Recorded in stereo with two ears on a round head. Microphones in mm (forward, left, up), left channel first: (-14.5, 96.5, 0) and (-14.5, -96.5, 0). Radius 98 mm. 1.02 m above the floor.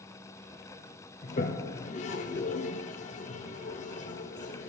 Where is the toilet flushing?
35° left (ahead or behind), 0.7 m.